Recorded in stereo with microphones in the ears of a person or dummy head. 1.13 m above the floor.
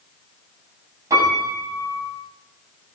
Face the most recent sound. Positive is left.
turn(degrees=-20)  # may be behind; listen again after turning